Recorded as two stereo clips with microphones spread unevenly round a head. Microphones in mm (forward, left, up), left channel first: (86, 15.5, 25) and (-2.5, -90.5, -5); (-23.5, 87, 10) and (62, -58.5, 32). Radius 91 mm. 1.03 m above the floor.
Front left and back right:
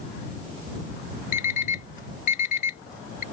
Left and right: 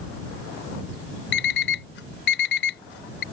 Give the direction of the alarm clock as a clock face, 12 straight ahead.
9 o'clock.